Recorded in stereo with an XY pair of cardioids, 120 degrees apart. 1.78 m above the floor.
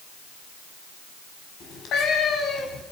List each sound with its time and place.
1.6 s a cat meowing: 65° left, 4.5 m